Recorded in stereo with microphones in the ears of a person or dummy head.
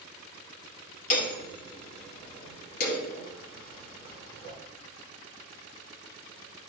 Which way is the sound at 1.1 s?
60° left (ahead or behind).